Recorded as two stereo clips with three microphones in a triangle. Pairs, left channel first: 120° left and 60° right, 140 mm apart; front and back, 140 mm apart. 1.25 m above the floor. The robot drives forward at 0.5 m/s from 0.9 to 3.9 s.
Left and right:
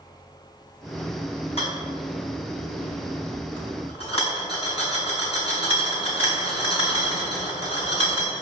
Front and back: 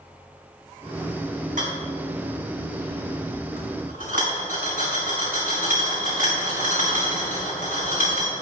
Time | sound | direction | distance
1.6 | a rattle | 165° left | 4.5 m